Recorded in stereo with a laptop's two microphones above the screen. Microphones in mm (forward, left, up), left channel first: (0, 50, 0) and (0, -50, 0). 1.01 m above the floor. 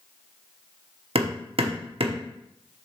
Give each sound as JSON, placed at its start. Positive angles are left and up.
{"t": 1.1, "sound": "hammering", "side_deg": -70, "distance_m": 0.9}